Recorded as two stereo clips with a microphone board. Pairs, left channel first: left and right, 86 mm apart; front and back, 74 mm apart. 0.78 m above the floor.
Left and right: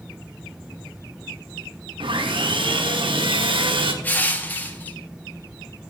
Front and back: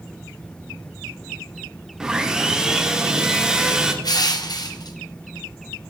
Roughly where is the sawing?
Right.